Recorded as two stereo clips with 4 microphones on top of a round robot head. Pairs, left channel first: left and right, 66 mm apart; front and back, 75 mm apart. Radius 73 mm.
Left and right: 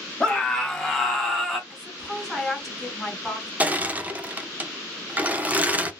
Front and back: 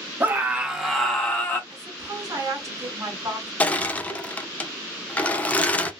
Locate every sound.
0.2 s a scream: 155° left, 1.0 m; by 1.6 s 5° left, 1.0 m
1.7 s a woman speaking: straight behind, 1.6 m
3.6 s crushing: 50° right, 0.6 m